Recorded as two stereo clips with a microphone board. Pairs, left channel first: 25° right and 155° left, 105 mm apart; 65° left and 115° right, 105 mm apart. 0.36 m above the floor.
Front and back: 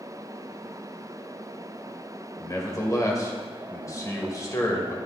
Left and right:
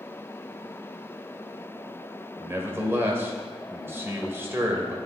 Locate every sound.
2.4 s a man speaking: 60° right, 1.2 m